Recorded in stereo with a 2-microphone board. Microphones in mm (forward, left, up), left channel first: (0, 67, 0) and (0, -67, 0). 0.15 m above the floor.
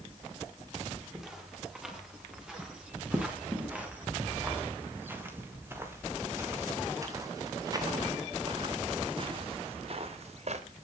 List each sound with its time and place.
1.1 s footsteps: 5° right (ahead or behind), 7.5 m; by 10.6 s 55° right (ahead or behind), 3 m